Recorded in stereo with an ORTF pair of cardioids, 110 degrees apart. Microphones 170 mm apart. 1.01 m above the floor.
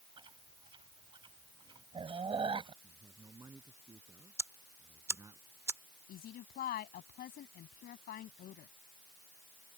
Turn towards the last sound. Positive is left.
turn(degrees=60)